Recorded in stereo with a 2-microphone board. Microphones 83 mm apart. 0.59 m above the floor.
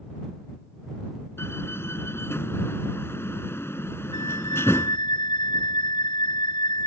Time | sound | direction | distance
1.4 | a door slam | 30° left (ahead or behind) | ?
4.1 | a flute | 75° left (ahead or behind) | ?